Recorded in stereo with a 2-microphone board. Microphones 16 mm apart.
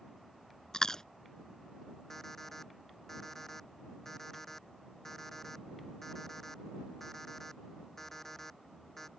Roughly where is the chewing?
Left.